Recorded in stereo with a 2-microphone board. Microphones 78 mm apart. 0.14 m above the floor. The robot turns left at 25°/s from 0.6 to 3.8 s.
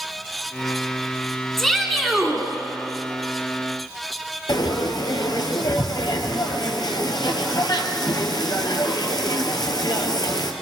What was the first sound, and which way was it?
A shout, 5° left (ahead or behind).